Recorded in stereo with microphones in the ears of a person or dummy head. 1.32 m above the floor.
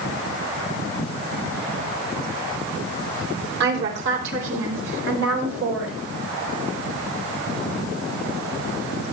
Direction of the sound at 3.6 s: 65° right (ahead or behind).